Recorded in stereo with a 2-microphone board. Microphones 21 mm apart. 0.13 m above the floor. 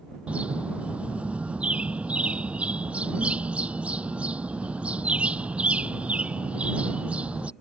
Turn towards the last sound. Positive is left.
turn(degrees=-80)